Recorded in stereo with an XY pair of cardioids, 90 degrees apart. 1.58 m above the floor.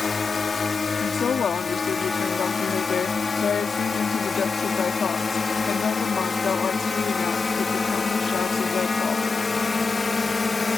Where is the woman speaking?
50° left.